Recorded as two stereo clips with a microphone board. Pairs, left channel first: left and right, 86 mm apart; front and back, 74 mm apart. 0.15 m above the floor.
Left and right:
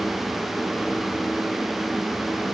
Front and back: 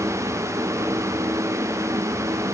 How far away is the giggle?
No giggle in this recording.